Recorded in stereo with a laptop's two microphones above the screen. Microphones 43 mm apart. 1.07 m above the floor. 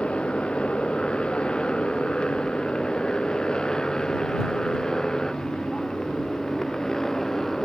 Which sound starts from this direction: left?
A motorcycle, at 0.0 s.